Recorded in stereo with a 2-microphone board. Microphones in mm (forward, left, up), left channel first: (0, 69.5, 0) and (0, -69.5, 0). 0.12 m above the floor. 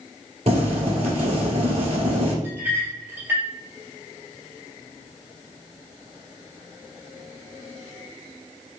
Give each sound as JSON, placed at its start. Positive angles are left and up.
{"t": 0.5, "sound": "boiling", "side_deg": -50, "distance_m": 1.6}
{"t": 2.4, "sound": "a clink", "side_deg": -15, "distance_m": 2.0}